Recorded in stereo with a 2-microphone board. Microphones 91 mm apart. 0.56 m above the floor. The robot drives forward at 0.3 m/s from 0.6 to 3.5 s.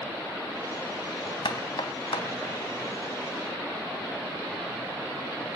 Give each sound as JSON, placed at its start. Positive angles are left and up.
{"t": 1.4, "sound": "knocking", "side_deg": 70, "distance_m": 3.5}